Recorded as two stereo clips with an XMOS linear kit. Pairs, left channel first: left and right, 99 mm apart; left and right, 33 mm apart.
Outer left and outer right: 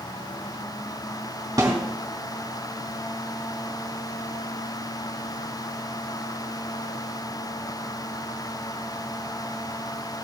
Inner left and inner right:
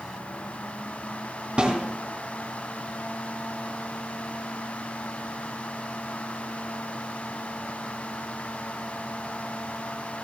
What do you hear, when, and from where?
1.6 s a snare drum: 35° right (ahead or behind), 3 m